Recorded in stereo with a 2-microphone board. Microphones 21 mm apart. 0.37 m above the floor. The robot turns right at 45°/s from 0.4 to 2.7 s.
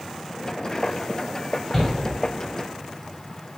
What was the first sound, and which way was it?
A shout, 25° left (ahead or behind).